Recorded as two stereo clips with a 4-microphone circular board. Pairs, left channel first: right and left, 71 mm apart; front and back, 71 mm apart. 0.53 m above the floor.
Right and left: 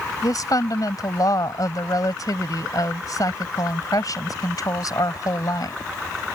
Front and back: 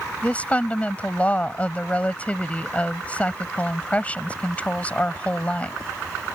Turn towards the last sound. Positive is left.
turn(degrees=-70)